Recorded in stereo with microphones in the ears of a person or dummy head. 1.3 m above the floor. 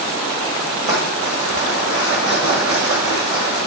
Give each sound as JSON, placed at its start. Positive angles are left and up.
{"t": 0.8, "sound": "crumpling", "side_deg": -45, "distance_m": 1.5}